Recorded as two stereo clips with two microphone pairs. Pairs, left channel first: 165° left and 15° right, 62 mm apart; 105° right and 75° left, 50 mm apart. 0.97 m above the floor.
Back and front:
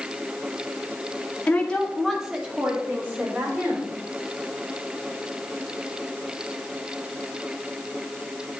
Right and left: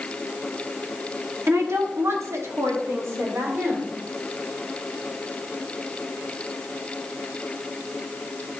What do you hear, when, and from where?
1.5 s a woman speaking: 105° left, 1.8 m; by 3.9 s 35° left, 4 m